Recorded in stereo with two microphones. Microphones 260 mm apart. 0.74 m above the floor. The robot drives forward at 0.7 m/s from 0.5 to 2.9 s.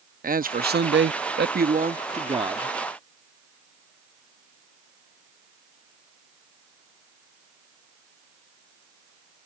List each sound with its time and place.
0.2 s a man speaking: 35° right (ahead or behind); by 2.8 s 15° right (ahead or behind)